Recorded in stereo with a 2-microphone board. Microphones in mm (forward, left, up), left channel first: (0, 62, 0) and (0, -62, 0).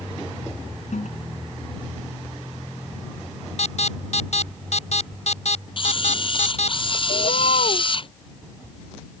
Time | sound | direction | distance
0.9 | a toilet flushing | 75° left (ahead or behind) | ?
3.6 | an alarm | 65° left (ahead or behind) | ?
5.8 | a camera shutter | 45° left (ahead or behind) | ?
7.1 | a bird | 80° left | ?